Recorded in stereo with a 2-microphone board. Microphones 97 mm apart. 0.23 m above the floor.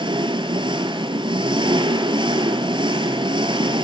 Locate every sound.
0.0 s an engine running: 60° right (ahead or behind), 1.4 m